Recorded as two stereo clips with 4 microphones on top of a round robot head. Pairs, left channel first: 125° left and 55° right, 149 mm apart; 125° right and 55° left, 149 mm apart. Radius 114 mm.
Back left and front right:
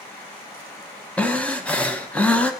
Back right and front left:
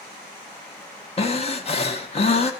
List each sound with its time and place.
1.2 s breathing: 155° right, 0.9 m